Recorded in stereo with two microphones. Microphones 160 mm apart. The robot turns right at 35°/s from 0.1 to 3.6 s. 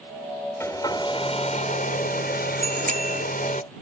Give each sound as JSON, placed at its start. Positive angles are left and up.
{"t": 0.6, "sound": "a hair dryer", "azimuth_deg": 15}
{"t": 2.6, "sound": "a bicycle bell", "side_deg": -50}